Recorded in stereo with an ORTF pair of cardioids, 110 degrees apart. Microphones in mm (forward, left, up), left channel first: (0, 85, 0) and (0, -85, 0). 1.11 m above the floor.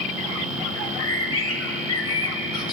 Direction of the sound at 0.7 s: 30° left.